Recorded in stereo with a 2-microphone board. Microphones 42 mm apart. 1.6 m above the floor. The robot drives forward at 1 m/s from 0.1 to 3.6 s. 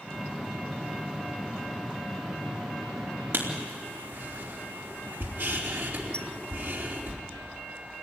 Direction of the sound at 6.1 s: 25° left (ahead or behind).